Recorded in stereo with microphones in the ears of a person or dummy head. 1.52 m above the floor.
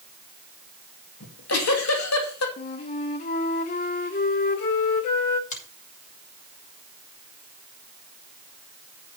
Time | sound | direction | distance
1.2 | a giggle | 80° left | 2.5 m
2.6 | a flute | 35° left (ahead or behind) | 1.2 m
5.5 | a finger snap | 40° left (ahead or behind) | 6.5 m